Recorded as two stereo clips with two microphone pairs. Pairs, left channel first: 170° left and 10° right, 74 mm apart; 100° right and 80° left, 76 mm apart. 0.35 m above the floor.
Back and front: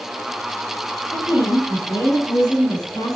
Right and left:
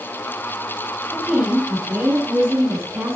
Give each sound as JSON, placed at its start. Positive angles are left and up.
{"t": 1.1, "sound": "a woman speaking", "azimuth_deg": 155, "distance_m": 4.5}